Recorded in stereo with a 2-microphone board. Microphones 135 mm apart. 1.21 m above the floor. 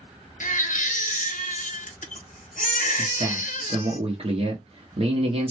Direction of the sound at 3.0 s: 45° right (ahead or behind).